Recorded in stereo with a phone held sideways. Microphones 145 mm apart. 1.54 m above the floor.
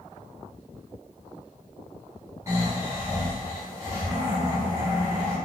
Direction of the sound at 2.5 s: 20° right (ahead or behind).